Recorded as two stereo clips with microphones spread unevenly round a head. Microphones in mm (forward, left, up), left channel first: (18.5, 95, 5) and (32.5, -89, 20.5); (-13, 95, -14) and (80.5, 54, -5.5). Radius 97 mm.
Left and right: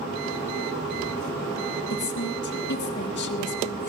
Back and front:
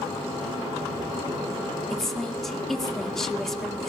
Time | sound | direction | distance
1.9 | a woman speaking | 70° left | 1.9 m